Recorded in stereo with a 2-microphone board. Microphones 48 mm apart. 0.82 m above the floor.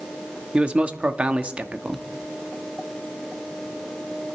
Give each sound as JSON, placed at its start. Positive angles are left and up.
{"t": 0.5, "sound": "a man speaking", "side_deg": -25, "distance_m": 1.1}